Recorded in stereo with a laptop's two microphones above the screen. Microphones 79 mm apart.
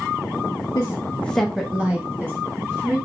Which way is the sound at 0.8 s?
45° left (ahead or behind).